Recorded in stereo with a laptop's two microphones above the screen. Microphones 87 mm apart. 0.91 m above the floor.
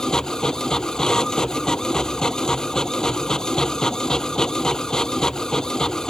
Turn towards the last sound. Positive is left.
turn(degrees=10)  # may be behind; listen again after turning